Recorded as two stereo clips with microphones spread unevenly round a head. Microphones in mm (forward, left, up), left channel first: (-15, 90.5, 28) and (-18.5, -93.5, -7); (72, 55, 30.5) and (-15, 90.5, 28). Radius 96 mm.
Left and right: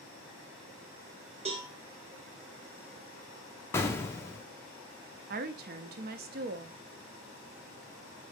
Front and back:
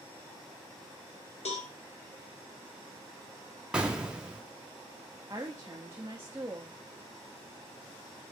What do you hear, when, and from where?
1.4 s a cowbell: 30° right, 0.9 m
3.7 s an explosion: 90° left, 0.5 m
5.3 s a woman speaking: 130° right, 0.5 m